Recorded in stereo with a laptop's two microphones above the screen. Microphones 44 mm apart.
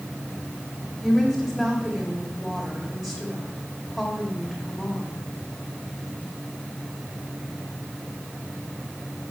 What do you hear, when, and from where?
1.0 s a woman speaking: 5° right (ahead or behind), 1.7 m